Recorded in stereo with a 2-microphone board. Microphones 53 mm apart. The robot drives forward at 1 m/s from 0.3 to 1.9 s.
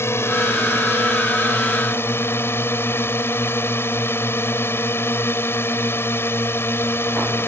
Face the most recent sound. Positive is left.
turn(degrees=50)  # may be behind; listen again after turning